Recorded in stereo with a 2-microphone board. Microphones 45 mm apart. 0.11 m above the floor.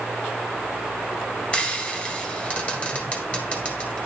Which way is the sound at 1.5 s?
25° left (ahead or behind).